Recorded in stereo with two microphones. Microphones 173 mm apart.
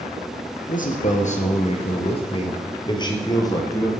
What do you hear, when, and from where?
0.7 s a man speaking: 50° left (ahead or behind), 3 m; by 3.9 s 20° left (ahead or behind), 4 m